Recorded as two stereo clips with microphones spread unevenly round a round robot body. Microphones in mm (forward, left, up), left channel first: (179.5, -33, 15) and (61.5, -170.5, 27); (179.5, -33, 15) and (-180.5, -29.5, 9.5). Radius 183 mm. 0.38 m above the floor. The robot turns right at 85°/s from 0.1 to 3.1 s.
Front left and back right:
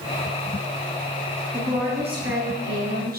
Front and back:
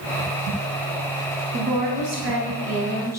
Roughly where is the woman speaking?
Behind left.